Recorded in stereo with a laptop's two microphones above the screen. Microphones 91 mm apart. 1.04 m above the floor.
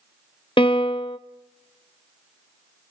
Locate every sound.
0.6 s a piano: 70° left (ahead or behind), 0.8 m